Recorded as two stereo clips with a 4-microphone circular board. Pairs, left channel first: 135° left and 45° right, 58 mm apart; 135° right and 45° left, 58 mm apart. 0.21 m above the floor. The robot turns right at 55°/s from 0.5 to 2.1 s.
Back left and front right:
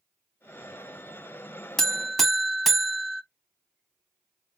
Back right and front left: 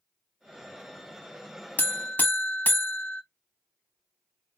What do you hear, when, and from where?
1.8 s a buzzer: 150° right, 0.6 m; by 3.2 s 130° right, 0.6 m